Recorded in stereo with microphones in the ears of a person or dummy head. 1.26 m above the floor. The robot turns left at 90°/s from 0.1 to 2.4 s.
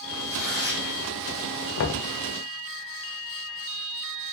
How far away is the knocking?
About 0.6 m.